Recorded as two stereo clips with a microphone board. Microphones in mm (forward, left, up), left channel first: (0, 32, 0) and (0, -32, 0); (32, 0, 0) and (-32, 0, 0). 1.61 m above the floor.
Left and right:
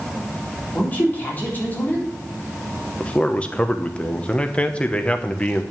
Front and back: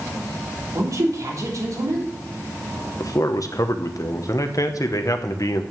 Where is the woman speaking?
150° left, 3.5 m.